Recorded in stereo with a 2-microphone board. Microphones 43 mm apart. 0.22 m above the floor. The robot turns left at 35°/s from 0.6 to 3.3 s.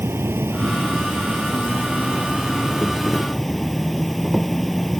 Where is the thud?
No thud in this recording.